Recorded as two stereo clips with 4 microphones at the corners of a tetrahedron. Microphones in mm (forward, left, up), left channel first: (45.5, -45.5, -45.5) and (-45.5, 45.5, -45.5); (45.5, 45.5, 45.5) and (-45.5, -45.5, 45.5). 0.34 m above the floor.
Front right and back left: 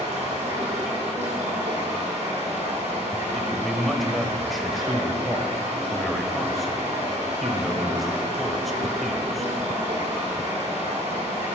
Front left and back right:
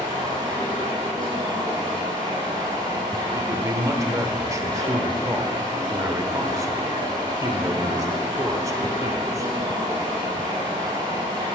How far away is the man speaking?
About 1.0 m.